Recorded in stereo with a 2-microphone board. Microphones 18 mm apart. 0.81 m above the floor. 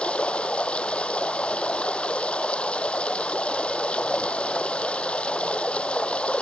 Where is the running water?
80° left.